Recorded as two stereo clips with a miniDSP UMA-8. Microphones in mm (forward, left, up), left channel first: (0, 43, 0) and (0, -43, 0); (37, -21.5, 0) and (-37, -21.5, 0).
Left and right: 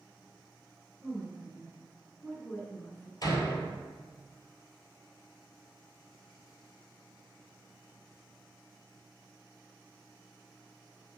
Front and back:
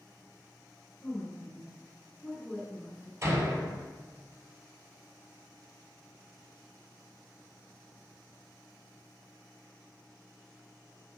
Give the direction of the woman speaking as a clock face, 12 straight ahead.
2 o'clock.